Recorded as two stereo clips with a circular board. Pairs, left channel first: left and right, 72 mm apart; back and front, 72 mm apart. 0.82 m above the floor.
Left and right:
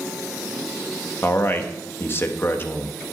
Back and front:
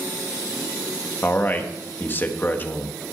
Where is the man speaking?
130° left, 1.4 m.